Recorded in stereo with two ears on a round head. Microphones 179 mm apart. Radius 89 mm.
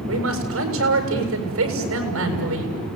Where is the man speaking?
80° right, 7.5 m.